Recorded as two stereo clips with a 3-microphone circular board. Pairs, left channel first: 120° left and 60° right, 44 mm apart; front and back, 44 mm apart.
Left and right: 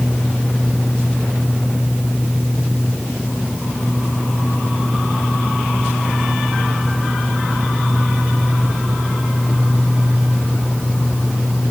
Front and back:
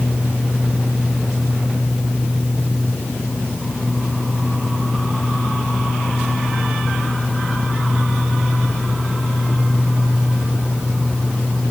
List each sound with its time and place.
Only background noise.